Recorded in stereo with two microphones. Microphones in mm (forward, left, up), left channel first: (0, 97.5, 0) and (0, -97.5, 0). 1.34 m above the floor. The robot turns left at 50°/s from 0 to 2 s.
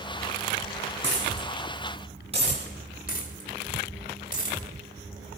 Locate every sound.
1.0 s a dropped coin: 75° right (ahead or behind), 5 m; by 2.6 s 30° right (ahead or behind), 5 m
3.1 s a dropped coin: 45° left (ahead or behind), 2 m